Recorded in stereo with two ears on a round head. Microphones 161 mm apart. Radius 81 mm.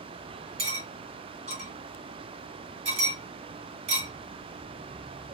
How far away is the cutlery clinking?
About 1.6 m.